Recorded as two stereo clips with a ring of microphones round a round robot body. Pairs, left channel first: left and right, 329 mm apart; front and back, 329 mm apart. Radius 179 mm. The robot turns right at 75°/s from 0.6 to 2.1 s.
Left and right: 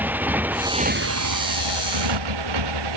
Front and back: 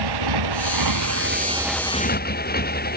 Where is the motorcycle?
175° right; by 3.0 s 60° right.